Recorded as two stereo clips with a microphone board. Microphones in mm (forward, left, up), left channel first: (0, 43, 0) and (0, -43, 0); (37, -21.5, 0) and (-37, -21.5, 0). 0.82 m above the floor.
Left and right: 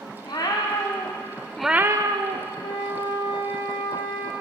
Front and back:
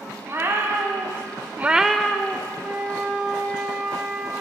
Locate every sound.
0.2 s a cat meowing: 125° left, 1.8 m; by 2.5 s 70° right, 1.1 m
2.6 s a flute: 105° left, 1.7 m